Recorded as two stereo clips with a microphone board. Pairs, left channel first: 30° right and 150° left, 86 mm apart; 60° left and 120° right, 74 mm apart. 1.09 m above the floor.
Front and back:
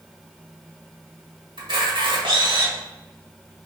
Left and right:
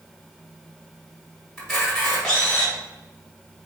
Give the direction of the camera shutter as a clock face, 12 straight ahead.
7 o'clock.